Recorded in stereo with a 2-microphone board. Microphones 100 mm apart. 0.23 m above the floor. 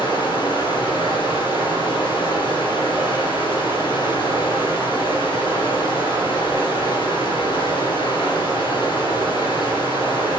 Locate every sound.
0.0 s running water: 55° left (ahead or behind), 3.5 m